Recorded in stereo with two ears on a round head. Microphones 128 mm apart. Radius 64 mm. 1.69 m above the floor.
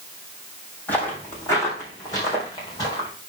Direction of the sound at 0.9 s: 10° left (ahead or behind).